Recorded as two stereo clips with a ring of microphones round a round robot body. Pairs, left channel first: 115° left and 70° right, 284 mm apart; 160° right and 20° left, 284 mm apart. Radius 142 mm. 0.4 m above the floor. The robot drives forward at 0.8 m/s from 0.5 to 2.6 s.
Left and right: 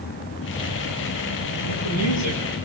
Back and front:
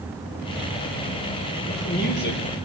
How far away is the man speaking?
About 7.5 m.